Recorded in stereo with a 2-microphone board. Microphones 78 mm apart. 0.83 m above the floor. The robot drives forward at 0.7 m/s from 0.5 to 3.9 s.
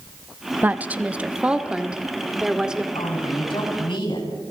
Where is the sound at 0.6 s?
20° right (ahead or behind), 0.9 m; by 2.9 s 10° right (ahead or behind), 2.5 m.